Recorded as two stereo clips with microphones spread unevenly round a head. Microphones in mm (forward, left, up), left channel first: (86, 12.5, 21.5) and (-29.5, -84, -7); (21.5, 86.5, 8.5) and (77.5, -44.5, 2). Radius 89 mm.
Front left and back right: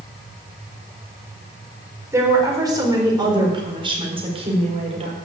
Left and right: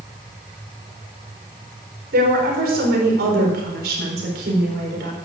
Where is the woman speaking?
70° right, 4 m; by 5.1 s 95° right, 4 m.